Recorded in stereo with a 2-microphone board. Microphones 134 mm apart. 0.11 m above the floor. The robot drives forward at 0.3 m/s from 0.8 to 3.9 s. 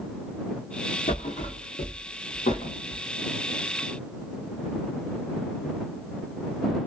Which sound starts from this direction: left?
A thud, at 1.1 s.